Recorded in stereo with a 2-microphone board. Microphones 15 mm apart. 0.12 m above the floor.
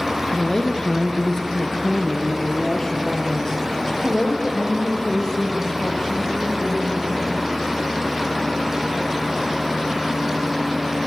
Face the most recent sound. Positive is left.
turn(degrees=25)  # may be behind; listen again after turning